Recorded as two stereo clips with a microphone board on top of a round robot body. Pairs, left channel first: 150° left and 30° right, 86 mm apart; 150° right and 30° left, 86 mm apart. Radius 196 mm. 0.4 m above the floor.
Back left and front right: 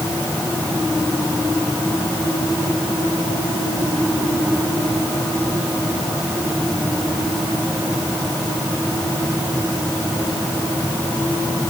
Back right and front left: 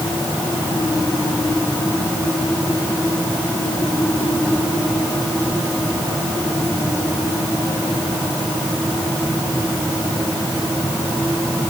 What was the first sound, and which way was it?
Only background noise.